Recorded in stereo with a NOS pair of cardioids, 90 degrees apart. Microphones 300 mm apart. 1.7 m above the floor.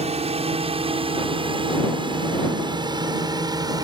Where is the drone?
20° right; by 3.9 s 15° right.